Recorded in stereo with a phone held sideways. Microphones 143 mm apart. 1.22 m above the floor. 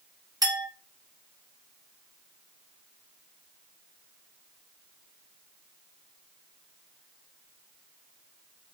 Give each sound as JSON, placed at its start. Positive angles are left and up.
{"t": 0.4, "sound": "a clink", "side_deg": -25, "distance_m": 1.7}